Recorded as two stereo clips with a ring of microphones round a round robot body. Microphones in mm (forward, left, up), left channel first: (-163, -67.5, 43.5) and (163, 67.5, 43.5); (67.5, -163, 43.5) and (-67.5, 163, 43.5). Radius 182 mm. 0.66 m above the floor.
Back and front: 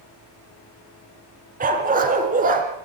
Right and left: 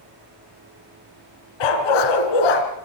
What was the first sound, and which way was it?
A dog barking, 45° right.